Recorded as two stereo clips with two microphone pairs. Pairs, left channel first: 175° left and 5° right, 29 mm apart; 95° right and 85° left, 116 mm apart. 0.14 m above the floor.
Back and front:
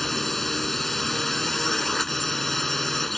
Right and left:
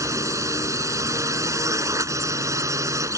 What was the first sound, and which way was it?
A drone, 100° left.